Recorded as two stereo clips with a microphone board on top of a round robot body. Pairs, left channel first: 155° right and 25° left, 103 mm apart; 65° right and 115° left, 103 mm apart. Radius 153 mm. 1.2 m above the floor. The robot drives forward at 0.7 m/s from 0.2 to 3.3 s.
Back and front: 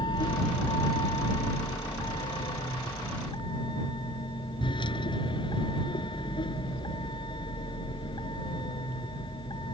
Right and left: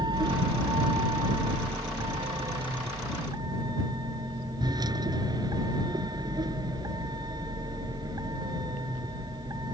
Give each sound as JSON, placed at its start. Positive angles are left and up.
{"t": 0.0, "sound": "a vehicle", "azimuth_deg": 160}